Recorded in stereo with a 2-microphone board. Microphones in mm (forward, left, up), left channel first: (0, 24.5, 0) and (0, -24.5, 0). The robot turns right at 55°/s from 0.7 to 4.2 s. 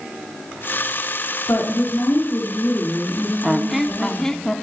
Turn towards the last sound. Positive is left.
turn(degrees=25)